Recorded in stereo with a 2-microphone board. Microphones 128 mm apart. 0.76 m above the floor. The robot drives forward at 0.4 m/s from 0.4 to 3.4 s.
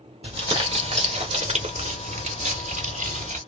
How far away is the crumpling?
About 1.6 m.